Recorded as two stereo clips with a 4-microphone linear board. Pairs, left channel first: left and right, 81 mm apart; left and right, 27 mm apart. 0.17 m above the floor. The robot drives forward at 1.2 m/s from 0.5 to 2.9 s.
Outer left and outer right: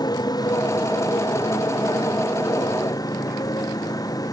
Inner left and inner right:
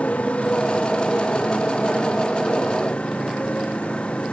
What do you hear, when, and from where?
0.0 s a motorcycle: 55° left (ahead or behind); by 4.3 s 50° left (ahead or behind)